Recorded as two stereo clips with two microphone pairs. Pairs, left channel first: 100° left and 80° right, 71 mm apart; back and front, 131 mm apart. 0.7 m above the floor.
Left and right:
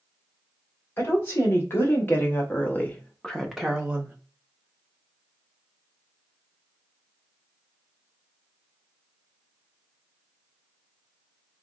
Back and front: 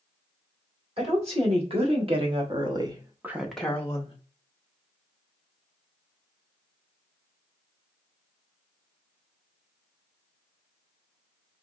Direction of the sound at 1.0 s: 40° left.